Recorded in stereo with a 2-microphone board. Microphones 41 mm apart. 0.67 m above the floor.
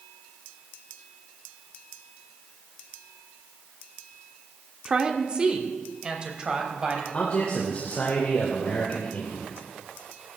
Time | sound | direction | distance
4.8 | a woman speaking | 25° right (ahead or behind) | 1.2 m
7.1 | a man speaking | 35° left (ahead or behind) | 2.5 m